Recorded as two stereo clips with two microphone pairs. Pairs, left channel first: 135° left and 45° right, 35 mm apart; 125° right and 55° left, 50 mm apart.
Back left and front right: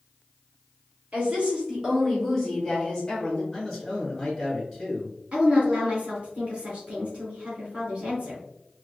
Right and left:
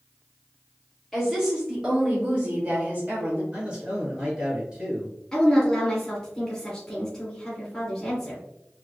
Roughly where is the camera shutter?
No camera shutter in this recording.